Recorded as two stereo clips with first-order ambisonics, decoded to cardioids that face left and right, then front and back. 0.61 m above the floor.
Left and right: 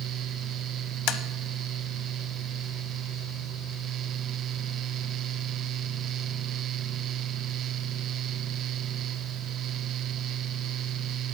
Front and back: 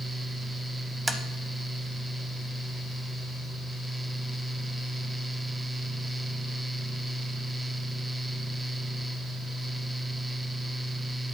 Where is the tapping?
100° left, 0.5 m.